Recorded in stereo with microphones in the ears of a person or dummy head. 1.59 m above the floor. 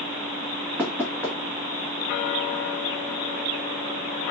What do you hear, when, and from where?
0.8 s knocking: 5° left (ahead or behind), 1.3 m